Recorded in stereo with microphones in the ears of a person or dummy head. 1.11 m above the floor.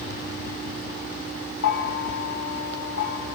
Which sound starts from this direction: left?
A bell, at 1.6 s.